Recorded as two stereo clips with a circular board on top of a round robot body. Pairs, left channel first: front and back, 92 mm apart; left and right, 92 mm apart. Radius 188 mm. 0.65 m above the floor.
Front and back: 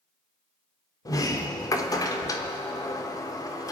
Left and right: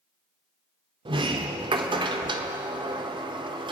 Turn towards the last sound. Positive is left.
turn(degrees=-55)